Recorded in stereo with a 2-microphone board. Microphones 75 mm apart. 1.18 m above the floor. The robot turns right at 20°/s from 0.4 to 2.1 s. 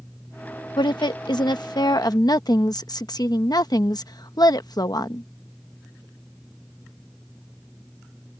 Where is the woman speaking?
90° left; by 5.3 s 65° left (ahead or behind).